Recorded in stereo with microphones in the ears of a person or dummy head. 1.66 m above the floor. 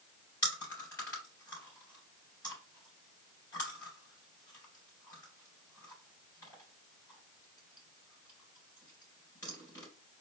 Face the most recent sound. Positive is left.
turn(degrees=20)  # may be behind; listen again after turning